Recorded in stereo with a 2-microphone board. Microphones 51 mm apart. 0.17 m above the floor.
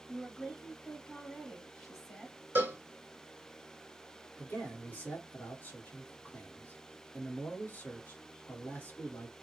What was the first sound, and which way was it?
A woman speaking, 5° left (ahead or behind).